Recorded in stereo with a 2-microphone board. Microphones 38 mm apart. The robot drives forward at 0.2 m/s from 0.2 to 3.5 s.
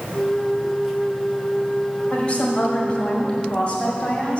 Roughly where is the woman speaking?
Left.